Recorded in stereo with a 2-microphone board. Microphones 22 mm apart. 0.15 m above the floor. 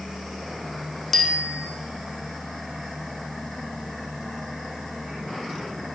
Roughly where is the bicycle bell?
Centre.